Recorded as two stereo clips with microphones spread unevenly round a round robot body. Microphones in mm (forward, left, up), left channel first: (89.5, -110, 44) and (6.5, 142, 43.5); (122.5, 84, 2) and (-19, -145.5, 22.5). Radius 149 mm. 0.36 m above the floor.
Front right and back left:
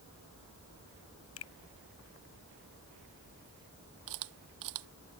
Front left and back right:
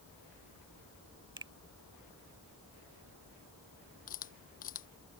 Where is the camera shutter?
125° left.